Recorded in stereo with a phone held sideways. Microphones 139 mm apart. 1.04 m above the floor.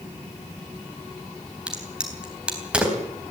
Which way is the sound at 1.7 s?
5° right (ahead or behind).